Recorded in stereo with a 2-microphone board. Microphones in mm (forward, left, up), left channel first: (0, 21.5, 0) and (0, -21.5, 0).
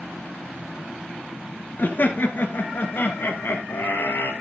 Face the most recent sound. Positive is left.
turn(degrees=60)  # may be behind; listen again after turning